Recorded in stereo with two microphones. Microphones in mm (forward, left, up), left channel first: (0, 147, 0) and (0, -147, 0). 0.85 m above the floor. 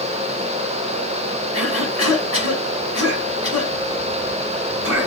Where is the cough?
60° left (ahead or behind), 6 m.